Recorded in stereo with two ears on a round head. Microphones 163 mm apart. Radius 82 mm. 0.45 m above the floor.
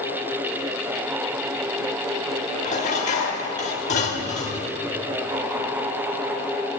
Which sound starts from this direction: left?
Dishes clattering, at 2.6 s.